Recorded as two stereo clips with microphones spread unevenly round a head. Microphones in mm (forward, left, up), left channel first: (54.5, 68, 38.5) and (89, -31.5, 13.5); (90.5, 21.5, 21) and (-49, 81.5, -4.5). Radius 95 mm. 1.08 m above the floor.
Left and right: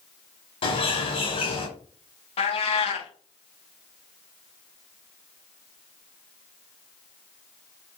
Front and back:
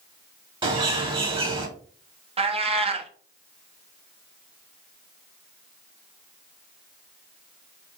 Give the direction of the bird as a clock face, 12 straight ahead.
9 o'clock.